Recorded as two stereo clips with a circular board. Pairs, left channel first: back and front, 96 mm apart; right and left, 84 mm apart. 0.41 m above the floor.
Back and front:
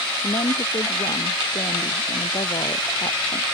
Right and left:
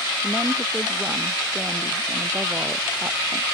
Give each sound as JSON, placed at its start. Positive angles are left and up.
{"t": 0.2, "sound": "a woman speaking", "azimuth_deg": 160}